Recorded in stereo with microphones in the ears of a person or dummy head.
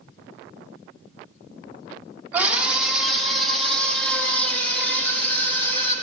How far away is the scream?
About 2 m.